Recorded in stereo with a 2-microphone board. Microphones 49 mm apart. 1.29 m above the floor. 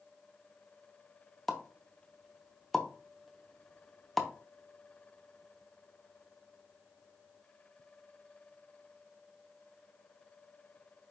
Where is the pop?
Centre (ahead or behind), 0.7 m.